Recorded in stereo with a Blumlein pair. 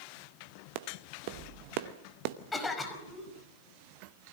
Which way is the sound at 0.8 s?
45° right.